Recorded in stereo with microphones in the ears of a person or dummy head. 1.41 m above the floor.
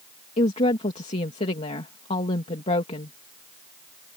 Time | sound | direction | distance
0.4 | a woman speaking | 35° left (ahead or behind) | ?